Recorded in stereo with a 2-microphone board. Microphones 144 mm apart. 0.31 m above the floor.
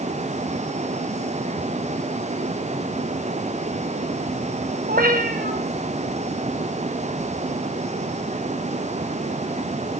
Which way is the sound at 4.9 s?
85° right.